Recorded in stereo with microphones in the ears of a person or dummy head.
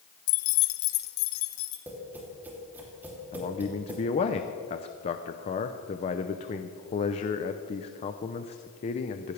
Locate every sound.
0.3 s keys jangling: 65° left (ahead or behind), 0.6 m; by 1.8 s 85° left, 1.9 m
1.9 s tapping: 10° right (ahead or behind), 3 m
3.3 s a man speaking: 30° left (ahead or behind), 0.7 m